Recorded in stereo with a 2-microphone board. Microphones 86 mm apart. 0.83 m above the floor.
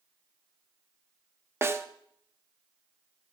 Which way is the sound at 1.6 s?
30° right (ahead or behind).